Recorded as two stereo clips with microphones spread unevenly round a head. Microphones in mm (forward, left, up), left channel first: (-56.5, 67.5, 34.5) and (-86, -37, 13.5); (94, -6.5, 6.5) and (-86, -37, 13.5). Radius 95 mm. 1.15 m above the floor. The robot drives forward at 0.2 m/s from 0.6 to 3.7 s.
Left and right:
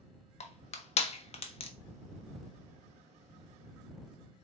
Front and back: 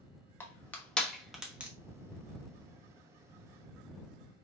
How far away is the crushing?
About 0.8 m.